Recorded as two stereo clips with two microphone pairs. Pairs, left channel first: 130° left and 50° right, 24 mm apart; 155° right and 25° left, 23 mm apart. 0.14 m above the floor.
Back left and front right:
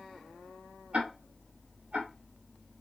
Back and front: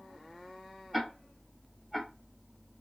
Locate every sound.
0.9 s ticking: 75° right, 3 m